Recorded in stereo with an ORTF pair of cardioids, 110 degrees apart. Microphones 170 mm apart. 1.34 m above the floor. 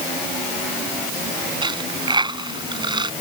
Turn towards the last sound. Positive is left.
turn(degrees=-30)